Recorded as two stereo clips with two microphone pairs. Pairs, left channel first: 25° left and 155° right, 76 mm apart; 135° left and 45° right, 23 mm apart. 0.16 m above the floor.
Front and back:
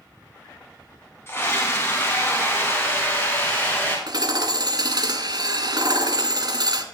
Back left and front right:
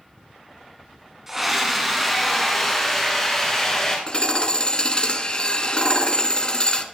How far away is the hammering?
About 1.4 m.